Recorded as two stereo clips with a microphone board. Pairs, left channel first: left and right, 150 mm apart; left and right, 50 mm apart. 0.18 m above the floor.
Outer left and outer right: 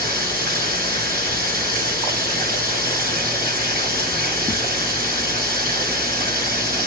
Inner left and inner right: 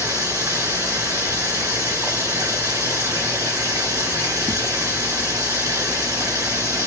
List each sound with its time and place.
0.0 s running water: 80° right, 1.7 m